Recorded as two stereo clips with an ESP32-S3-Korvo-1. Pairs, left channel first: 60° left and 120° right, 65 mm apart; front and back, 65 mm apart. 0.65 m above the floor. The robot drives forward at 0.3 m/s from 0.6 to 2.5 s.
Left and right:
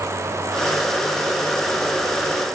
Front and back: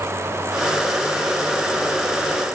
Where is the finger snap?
No finger snap in this recording.